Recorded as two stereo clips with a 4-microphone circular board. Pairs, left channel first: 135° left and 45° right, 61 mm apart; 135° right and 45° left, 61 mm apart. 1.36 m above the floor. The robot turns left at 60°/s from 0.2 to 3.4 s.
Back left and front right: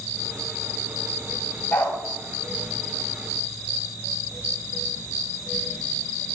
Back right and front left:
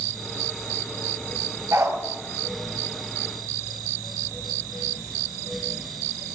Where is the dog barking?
75° left, 3 m; by 2.0 s 60° left, 3 m.